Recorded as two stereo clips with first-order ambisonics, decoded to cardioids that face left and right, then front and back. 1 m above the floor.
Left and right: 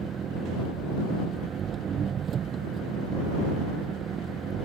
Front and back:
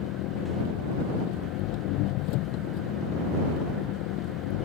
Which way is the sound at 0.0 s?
30° right.